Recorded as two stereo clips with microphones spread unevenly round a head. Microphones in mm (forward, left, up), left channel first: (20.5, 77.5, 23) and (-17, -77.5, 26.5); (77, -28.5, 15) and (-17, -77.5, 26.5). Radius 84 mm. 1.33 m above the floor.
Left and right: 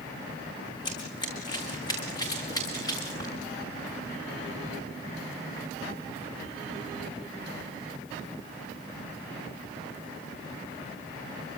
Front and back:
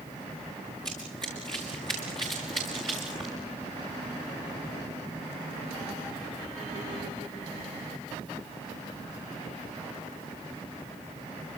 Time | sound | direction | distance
0.8 | running footsteps | 140° left | 4.5 m